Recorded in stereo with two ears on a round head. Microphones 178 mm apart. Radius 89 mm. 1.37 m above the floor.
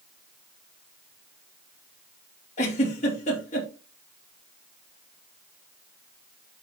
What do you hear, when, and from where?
2.6 s a giggle: 35° left (ahead or behind), 3.5 m